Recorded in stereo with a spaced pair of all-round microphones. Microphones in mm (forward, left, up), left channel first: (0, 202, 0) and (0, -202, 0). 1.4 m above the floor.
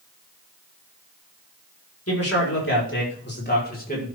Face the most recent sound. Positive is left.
turn(degrees=20)  # may be behind; listen again after turning